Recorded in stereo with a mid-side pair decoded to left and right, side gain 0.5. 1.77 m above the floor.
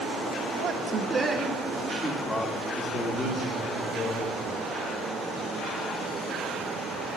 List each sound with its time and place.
0.6 s a man speaking: 50° right, 2 m; by 4.6 s 45° left, 5.5 m